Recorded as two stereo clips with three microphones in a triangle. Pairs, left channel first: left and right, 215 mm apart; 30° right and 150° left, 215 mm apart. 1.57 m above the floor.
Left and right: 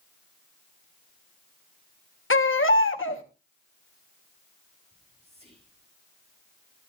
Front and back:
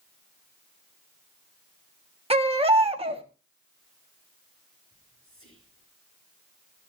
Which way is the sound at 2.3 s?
90° left.